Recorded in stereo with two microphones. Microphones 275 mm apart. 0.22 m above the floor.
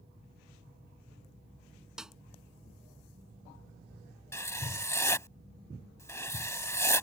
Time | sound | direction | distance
2.0 | a snare drum | centre (ahead or behind) | ?
4.3 | writing | 10° left (ahead or behind) | ?